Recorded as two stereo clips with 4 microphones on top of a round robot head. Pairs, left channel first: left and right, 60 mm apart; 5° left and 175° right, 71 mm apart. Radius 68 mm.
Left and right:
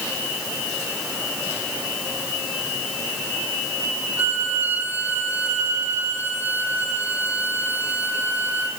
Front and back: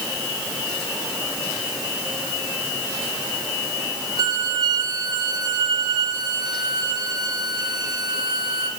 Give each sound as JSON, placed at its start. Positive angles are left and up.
{"t": 4.2, "sound": "a violin", "azimuth_deg": -155, "distance_m": 3.0}